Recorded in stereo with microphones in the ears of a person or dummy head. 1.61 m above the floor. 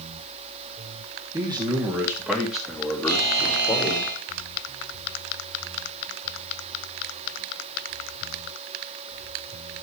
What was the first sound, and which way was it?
A man speaking, 20° right (ahead or behind).